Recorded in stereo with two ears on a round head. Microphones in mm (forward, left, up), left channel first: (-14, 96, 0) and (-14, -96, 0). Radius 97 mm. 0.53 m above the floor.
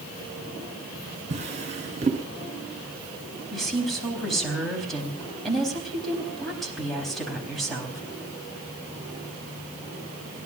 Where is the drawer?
35° right (ahead or behind), 2.5 m.